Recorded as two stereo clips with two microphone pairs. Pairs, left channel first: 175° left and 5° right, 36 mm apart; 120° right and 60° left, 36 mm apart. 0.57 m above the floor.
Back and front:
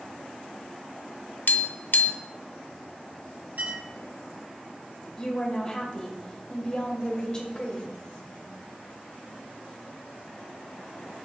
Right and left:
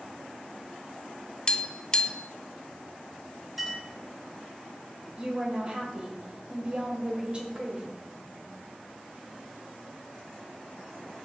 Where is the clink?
25° right, 3 m.